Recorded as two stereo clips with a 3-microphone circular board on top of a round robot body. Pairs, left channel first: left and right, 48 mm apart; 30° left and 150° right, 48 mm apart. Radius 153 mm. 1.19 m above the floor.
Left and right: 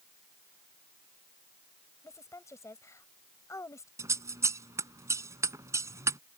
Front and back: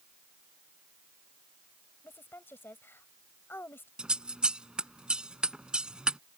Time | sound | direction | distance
2.0 | a woman speaking | 75° left | ?
4.0 | scissors | 80° right | ?